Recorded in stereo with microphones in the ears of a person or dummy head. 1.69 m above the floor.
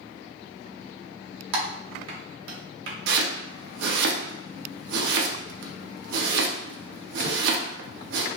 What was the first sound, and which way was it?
Typing on a keyboard, 70° right (ahead or behind).